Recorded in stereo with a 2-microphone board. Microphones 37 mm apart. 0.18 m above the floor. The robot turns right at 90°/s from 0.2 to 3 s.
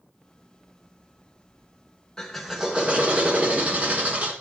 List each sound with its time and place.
2.2 s a drill: 160° left, 2 m; by 4.3 s 125° right, 2 m